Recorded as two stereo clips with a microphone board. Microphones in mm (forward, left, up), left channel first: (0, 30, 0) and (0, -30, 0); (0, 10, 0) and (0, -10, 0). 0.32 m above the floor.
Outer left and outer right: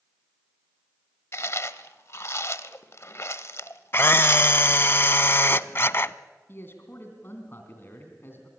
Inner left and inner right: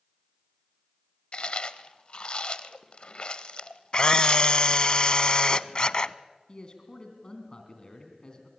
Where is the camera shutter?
40° left (ahead or behind), 0.5 m.